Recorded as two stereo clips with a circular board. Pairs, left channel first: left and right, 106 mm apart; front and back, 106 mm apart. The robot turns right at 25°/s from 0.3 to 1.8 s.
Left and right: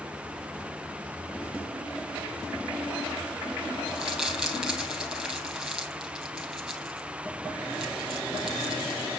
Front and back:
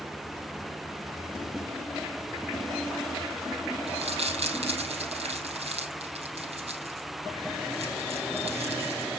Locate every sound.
3.9 s crumpling: 175° right, 4.5 m